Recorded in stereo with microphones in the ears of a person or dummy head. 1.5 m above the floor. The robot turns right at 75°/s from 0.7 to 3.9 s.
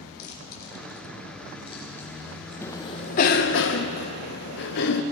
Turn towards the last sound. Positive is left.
turn(degrees=60)  # may be behind; listen again after turning